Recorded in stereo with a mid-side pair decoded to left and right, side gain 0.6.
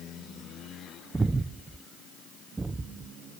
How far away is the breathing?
About 0.7 m.